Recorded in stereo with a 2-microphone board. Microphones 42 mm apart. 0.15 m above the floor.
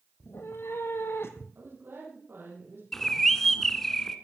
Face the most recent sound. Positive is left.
turn(degrees=5)  # may be behind; listen again after turning